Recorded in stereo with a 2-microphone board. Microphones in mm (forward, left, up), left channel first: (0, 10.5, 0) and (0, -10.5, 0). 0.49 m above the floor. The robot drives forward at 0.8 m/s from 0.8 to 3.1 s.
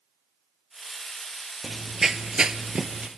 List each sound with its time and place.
1.6 s running footsteps: 5° right (ahead or behind), 0.8 m; by 3.1 s 50° right (ahead or behind), 0.8 m